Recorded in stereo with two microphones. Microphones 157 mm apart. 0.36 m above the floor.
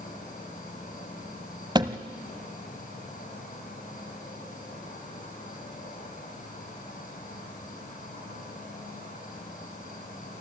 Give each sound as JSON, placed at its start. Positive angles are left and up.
{"t": 0.0, "sound": "an insect", "side_deg": 60, "distance_m": 5.5}
{"t": 1.8, "sound": "a thud", "side_deg": -25, "distance_m": 0.9}